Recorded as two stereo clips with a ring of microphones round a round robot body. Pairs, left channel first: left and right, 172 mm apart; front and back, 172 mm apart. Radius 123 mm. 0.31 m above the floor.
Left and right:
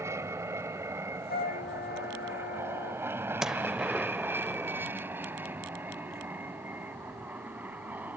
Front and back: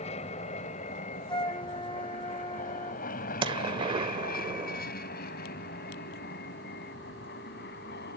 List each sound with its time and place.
0.0 s an aircraft: 25° right; by 8.2 s 10° right
1.3 s a flute: 60° left
3.4 s a gunshot: 175° right